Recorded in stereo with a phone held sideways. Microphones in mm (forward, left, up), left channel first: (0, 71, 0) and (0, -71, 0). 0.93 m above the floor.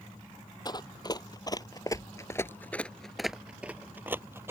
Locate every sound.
0.7 s running footsteps: 30° left (ahead or behind); by 4.5 s 20° right (ahead or behind)